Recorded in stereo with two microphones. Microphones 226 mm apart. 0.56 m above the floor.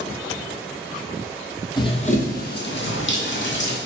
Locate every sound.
1.8 s running footsteps: 20° left (ahead or behind), 0.9 m; by 3.8 s 55° left (ahead or behind), 1.4 m